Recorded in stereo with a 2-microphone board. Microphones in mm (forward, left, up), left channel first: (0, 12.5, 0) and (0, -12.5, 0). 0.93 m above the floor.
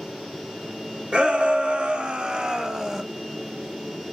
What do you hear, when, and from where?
1.1 s a shout: 55° right (ahead or behind), 1.4 m; by 3.0 s 20° right (ahead or behind), 0.8 m